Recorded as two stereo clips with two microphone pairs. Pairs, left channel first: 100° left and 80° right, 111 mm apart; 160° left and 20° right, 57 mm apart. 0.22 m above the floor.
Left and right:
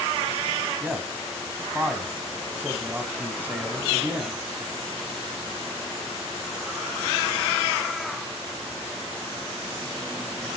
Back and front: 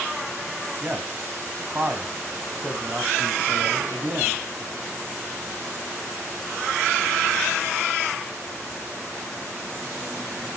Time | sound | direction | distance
0.8 | a man speaking | 20° right | 1.7 m